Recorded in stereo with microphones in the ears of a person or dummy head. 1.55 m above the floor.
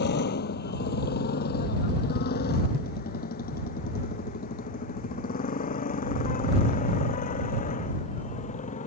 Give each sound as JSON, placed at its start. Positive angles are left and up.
{"t": 0.0, "sound": "a motorcycle", "side_deg": 55}